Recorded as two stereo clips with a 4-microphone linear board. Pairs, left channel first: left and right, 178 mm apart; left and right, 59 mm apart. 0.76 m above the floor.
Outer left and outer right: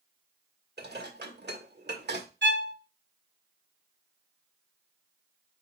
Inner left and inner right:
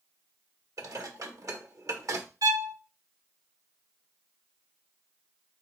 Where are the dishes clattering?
70° right (ahead or behind), 1.3 m.